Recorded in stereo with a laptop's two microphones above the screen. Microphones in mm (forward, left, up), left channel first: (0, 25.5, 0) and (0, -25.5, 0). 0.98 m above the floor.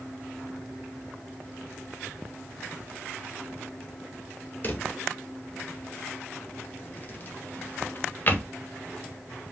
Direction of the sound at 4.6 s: 35° left (ahead or behind).